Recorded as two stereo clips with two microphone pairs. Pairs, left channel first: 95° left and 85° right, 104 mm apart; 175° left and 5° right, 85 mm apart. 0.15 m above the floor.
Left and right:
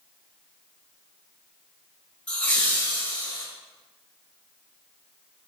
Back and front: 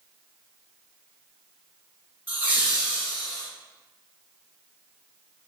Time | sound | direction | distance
2.3 | laughter | 35° left | 1.8 m